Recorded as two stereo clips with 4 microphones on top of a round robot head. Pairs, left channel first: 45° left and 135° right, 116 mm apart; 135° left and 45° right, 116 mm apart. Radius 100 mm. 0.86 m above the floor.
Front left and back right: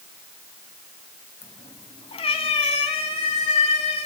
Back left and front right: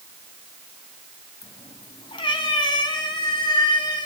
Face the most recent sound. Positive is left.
turn(degrees=80)